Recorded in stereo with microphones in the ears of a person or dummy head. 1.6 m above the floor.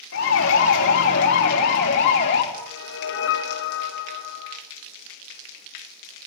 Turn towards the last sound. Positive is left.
turn(degrees=75)  # may be behind; listen again after turning